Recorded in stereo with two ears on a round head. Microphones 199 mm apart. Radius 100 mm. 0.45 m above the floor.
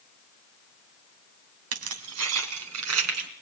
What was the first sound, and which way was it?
Keys jangling, 75° right (ahead or behind).